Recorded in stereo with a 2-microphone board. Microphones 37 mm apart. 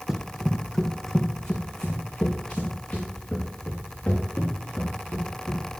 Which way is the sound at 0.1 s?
10° right (ahead or behind).